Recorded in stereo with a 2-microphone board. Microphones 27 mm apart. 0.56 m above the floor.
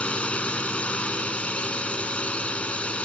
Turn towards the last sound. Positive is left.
turn(degrees=50)  # may be behind; listen again after turning